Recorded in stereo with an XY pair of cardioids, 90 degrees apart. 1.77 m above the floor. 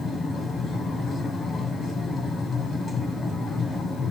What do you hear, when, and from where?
0.0 s a machine running: 55° left, 1.5 m